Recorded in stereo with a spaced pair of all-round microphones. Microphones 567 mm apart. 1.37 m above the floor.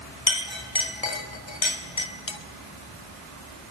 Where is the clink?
50° left (ahead or behind), 1.5 m.